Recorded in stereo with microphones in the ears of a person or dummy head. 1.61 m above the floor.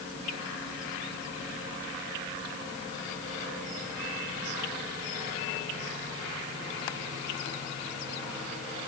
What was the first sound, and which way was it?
Only background noise.